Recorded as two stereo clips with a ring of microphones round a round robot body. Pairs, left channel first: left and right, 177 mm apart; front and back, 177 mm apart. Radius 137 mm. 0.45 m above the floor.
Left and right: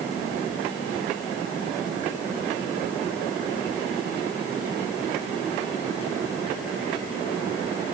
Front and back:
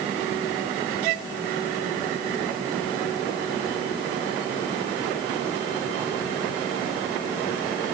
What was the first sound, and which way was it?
Only background noise.